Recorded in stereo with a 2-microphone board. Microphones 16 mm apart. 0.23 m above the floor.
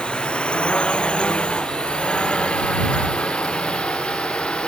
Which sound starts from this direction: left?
A drone, at 0.0 s.